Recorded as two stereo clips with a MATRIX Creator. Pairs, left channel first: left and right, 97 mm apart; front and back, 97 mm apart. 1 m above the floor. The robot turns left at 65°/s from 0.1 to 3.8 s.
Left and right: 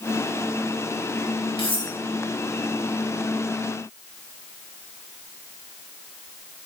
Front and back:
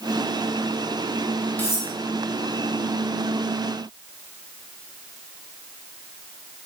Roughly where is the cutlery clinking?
Left.